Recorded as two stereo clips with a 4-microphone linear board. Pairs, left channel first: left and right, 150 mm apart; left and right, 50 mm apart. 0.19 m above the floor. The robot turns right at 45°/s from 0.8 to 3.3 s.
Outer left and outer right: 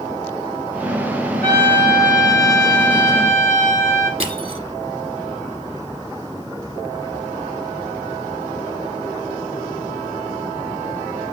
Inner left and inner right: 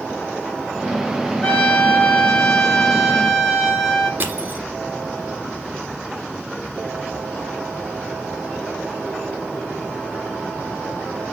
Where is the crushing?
40° right (ahead or behind), 1.1 m.